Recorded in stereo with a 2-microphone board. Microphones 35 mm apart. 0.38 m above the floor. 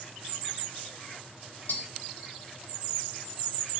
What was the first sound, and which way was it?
Tapping, 65° left (ahead or behind).